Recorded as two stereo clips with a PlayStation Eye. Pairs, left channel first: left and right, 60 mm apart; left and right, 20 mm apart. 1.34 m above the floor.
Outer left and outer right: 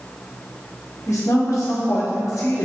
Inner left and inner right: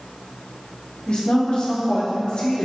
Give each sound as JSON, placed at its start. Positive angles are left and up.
{"t": 1.1, "sound": "a woman speaking", "side_deg": 60, "distance_m": 1.9}